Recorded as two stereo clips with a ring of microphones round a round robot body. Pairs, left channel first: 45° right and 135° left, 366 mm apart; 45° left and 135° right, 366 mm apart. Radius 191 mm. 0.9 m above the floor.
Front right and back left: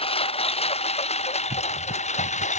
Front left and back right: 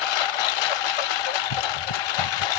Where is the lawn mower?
30° left; by 2.6 s 25° left.